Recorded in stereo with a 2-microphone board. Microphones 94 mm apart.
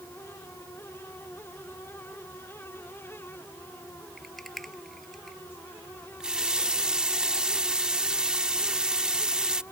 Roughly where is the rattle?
Centre.